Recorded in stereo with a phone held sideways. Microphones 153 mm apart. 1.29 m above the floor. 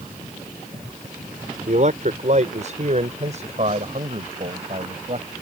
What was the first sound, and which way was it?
A man speaking, 55° right (ahead or behind).